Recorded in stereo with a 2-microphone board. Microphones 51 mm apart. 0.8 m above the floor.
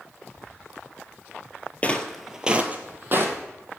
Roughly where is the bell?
No bell in this recording.